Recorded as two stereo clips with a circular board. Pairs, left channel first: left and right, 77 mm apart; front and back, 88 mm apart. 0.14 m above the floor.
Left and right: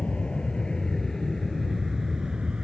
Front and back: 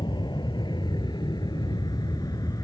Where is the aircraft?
15° left; by 2.6 s 15° right.